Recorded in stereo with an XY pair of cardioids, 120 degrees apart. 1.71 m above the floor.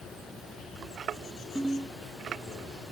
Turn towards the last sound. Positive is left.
turn(degrees=-5)